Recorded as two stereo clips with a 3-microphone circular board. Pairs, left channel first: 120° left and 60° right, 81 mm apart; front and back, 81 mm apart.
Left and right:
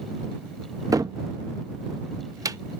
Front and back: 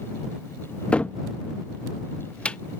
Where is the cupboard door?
70° right.